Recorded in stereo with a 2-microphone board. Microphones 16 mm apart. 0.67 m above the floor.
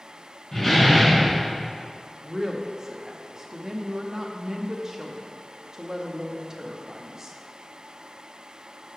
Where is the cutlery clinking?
No cutlery clinking in this recording.